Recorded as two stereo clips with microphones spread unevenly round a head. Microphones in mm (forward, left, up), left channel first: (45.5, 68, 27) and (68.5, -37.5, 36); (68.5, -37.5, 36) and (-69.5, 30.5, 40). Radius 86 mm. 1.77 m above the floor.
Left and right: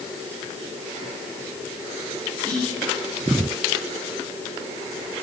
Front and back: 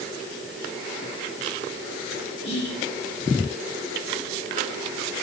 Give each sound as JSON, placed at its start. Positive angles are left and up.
{"t": 2.4, "sound": "whispering", "azimuth_deg": 25, "distance_m": 3.0}